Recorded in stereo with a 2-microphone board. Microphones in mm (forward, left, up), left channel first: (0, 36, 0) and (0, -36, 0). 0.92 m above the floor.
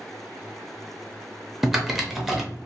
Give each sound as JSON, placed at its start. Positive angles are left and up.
{"t": 1.6, "sound": "typing on a keyboard", "side_deg": -5, "distance_m": 0.6}